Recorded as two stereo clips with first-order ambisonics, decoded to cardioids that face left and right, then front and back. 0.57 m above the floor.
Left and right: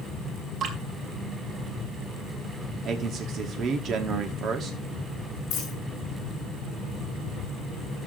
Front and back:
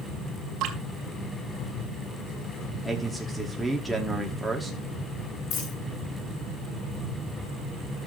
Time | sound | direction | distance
0.6 | dripping | 145° right | 2.5 m
2.9 | a man speaking | 90° right | 1.0 m
5.5 | a dropped coin | 40° left | 7.5 m